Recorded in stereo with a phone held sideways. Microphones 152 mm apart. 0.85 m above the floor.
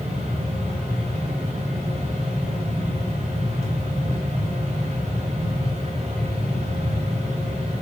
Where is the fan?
45° right (ahead or behind), 1.4 m.